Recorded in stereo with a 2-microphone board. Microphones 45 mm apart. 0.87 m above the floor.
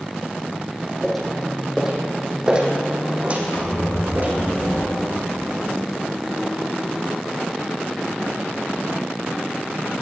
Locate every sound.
1.0 s footsteps: 5° left (ahead or behind), 2.5 m; by 4.3 s 45° right (ahead or behind), 3 m
3.5 s a squeak: 85° left, 3.5 m